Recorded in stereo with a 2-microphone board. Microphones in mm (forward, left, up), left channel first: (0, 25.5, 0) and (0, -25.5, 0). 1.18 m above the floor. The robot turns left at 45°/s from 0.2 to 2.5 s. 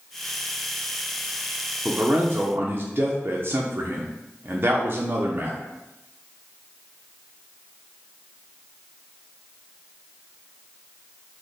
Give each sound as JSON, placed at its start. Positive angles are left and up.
{"t": 1.9, "sound": "a man speaking", "side_deg": -20, "distance_m": 0.5}